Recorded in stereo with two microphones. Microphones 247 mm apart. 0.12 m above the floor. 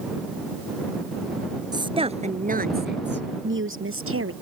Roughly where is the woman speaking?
Centre.